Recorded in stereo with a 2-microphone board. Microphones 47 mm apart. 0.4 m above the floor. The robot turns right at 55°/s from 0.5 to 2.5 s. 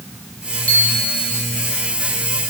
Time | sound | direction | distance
0.7 | a bicycle bell | 30° left | 9.5 m